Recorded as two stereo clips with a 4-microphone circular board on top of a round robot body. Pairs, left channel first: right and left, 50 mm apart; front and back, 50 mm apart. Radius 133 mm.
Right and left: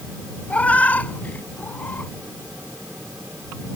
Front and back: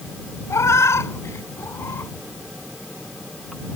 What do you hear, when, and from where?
0.5 s a cat meowing: 25° right; by 2.1 s 35° right